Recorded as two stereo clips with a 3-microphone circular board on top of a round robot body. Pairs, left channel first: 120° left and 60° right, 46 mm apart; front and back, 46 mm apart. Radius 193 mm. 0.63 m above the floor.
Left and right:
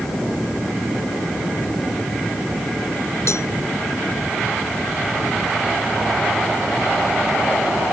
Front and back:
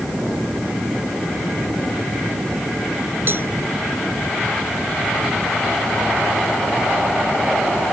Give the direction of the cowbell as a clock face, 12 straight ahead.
7 o'clock.